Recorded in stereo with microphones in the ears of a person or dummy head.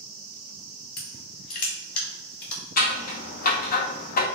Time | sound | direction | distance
1.0 | crushing | 55° left (ahead or behind) | 2 m
2.8 | scissors | 45° left (ahead or behind) | 0.6 m